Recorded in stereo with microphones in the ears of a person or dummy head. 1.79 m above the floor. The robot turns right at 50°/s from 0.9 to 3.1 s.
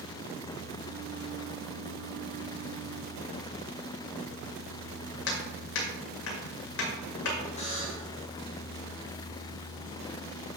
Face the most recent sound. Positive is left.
turn(degrees=35)  # may be behind; listen again after turning